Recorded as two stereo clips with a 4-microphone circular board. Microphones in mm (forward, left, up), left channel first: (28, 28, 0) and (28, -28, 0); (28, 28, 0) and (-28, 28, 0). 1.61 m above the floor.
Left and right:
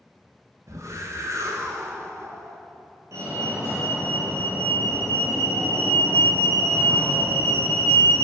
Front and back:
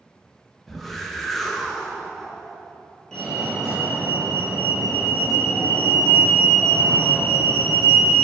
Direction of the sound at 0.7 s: 85° right.